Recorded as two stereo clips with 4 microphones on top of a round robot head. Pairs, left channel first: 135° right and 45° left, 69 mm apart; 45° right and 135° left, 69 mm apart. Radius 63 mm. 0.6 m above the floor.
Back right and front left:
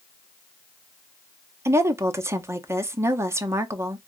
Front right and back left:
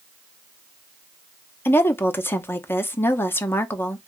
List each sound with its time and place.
1.6 s a woman speaking: 5° left, 0.8 m